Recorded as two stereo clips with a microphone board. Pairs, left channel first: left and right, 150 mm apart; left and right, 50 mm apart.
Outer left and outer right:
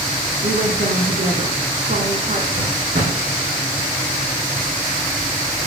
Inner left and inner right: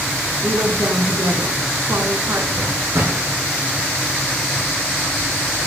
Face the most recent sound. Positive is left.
turn(degrees=-70)  # may be behind; listen again after turning